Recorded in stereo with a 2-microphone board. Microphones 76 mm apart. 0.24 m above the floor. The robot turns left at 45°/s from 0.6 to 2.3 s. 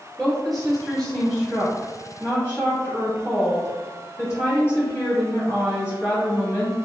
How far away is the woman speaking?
About 1.3 m.